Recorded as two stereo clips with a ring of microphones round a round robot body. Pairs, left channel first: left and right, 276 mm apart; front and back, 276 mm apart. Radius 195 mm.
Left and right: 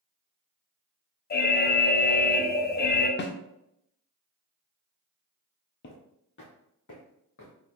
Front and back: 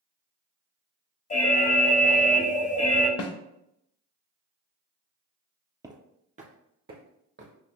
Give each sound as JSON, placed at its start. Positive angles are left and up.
{"t": 1.3, "sound": "an alarm", "azimuth_deg": 50, "distance_m": 0.6}
{"t": 3.2, "sound": "a snare drum", "azimuth_deg": 35, "distance_m": 0.7}
{"t": 5.8, "sound": "footsteps", "azimuth_deg": 110, "distance_m": 0.9}